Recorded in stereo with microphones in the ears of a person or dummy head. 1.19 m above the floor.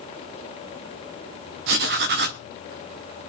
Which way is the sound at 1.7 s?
60° right (ahead or behind).